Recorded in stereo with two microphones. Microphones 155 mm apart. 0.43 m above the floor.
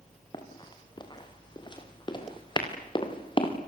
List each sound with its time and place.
0.3 s running footsteps: 30° left (ahead or behind), 6.5 m; by 3.5 s 35° left (ahead or behind), 5 m